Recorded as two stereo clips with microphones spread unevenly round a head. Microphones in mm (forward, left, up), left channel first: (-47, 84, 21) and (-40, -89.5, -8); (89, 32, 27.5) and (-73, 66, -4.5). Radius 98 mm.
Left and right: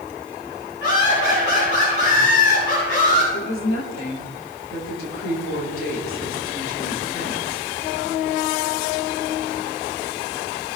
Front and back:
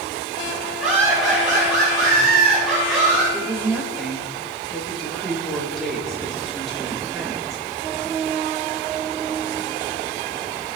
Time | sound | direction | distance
0.8 | laughter | 85° left | 7.5 m
3.3 | a woman speaking | 80° left | 5 m